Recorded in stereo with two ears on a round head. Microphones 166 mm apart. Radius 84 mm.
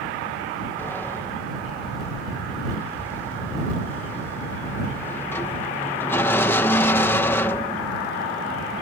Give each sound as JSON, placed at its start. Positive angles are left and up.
{"t": 0.8, "sound": "a sliding door", "side_deg": 10}